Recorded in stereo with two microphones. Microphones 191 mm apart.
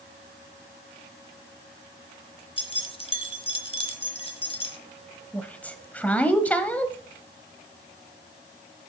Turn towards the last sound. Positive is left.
turn(degrees=10)  # may be behind; listen again after turning